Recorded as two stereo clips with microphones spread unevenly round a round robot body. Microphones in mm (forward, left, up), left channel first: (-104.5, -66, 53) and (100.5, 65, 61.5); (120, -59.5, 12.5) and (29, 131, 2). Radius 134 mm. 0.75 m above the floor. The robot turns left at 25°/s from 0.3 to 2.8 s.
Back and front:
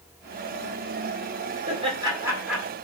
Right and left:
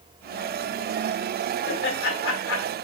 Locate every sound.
1.7 s laughter: 35° right, 1.9 m; by 2.7 s 60° right, 1.9 m